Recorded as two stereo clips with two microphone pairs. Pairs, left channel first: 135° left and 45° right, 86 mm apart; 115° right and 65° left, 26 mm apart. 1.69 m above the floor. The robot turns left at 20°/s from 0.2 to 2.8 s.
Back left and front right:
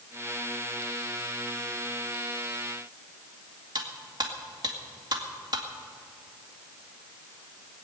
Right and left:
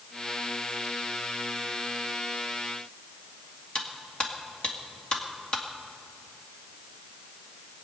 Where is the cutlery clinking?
70° right, 1.9 m.